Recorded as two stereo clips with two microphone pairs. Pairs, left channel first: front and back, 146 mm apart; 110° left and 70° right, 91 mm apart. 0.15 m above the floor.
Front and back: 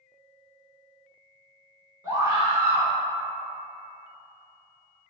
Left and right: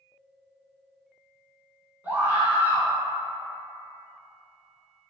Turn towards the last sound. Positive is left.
turn(degrees=-125)